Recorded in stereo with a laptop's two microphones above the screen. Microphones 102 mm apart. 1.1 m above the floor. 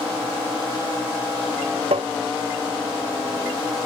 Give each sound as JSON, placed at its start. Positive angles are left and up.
{"t": 1.9, "sound": "tapping", "side_deg": -85}